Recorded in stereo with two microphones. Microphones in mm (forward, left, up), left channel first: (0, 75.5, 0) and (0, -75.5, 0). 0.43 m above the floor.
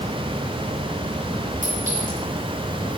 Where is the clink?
60° right (ahead or behind), 4 m.